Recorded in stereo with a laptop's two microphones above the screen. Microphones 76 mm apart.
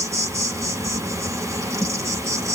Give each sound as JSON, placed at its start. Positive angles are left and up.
{"t": 0.0, "sound": "an insect", "side_deg": -40, "distance_m": 0.9}